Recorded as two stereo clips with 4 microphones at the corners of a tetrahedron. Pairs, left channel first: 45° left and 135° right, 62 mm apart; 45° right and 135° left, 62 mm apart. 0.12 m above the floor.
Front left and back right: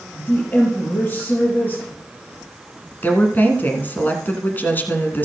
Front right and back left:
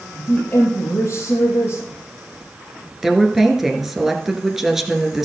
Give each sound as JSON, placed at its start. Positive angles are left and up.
{"t": 0.1, "sound": "a woman speaking", "azimuth_deg": 5, "distance_m": 2.5}
{"t": 3.0, "sound": "a woman speaking", "azimuth_deg": 55, "distance_m": 1.3}